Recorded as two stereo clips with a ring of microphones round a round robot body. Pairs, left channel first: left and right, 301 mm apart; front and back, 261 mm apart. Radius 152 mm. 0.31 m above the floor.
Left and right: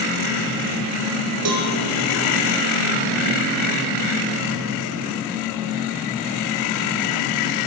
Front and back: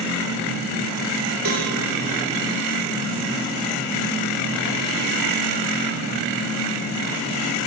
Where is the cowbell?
130° right, 5 m.